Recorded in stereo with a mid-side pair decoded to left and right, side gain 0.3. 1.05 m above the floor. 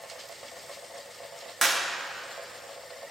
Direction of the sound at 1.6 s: 15° right.